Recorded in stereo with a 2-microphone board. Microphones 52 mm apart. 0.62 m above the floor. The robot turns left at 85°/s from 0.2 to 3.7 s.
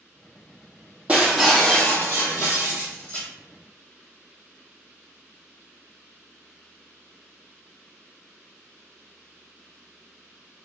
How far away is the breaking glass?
About 1.2 m.